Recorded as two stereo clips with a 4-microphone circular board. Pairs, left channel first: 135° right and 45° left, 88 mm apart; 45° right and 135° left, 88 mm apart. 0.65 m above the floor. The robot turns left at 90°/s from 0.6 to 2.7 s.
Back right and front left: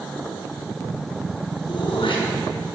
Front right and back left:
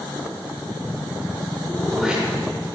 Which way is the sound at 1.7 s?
110° right.